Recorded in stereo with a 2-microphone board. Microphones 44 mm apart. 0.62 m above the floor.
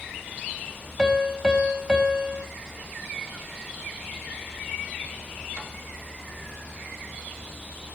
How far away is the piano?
About 3.5 m.